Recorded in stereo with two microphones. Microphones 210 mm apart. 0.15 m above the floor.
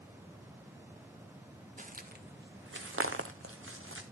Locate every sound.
1.8 s footsteps: 35° right (ahead or behind), 1.0 m; by 4.0 s 75° right (ahead or behind), 1.2 m